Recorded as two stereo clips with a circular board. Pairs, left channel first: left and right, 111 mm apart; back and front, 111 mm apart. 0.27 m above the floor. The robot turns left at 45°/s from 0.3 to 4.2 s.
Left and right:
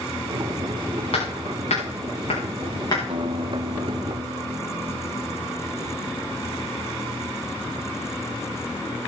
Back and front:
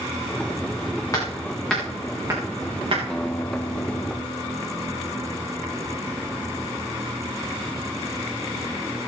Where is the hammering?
120° left, 8 m; by 3.0 s 40° left, 8 m.